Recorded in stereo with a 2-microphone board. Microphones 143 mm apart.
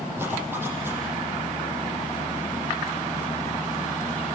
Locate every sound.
0.2 s a zipper: 15° right (ahead or behind), 7.5 m